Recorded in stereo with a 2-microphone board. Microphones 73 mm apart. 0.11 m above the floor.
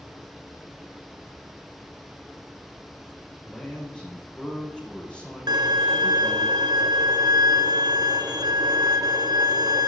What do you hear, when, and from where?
3.5 s a man speaking: 15° left (ahead or behind), 6 m
5.5 s a violin: 80° right, 1.0 m